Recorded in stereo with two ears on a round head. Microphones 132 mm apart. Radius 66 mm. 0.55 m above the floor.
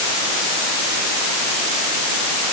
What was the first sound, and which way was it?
Only background noise.